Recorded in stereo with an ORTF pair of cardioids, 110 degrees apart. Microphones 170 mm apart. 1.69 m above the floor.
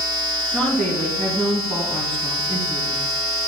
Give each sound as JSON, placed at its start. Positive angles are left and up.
{"t": 0.5, "sound": "a woman speaking", "azimuth_deg": 5, "distance_m": 2.5}